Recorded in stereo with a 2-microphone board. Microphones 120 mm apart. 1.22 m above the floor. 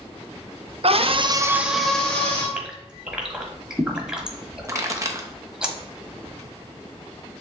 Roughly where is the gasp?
Centre.